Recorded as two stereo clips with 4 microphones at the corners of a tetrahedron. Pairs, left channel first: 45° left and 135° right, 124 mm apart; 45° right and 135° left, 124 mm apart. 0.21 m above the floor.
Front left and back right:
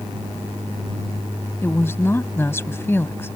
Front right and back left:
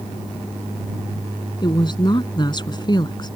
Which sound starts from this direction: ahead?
A woman speaking, at 1.6 s.